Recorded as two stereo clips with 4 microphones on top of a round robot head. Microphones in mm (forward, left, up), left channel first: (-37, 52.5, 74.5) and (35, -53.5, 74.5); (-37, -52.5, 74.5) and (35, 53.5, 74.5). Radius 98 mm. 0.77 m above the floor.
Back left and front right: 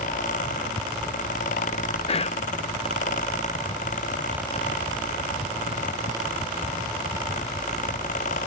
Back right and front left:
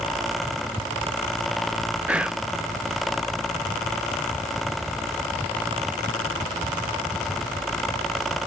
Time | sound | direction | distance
2.1 | whispering | 135° left | 0.6 m